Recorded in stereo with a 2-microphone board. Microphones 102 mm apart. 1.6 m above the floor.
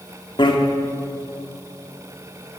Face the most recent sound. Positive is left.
turn(degrees=55)  # may be behind; listen again after turning